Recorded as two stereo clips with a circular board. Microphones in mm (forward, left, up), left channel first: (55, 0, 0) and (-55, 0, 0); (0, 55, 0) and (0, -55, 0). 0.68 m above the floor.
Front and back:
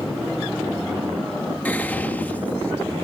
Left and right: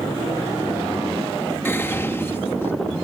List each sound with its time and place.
1.6 s whispering: 55° left